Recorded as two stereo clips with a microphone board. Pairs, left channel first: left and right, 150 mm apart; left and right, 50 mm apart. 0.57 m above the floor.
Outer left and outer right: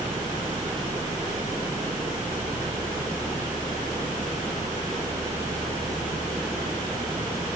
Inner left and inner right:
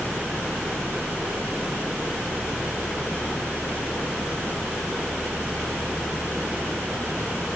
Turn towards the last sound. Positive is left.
No sound to turn to.